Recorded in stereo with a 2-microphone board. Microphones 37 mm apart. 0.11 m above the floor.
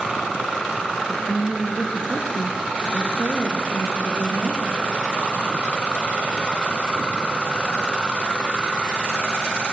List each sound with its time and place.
1.1 s a woman speaking: 10° right (ahead or behind), 2 m; by 4.6 s 60° right (ahead or behind), 4 m